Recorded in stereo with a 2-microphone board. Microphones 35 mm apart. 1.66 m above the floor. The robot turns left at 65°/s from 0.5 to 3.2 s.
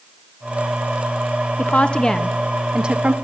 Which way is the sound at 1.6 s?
55° left.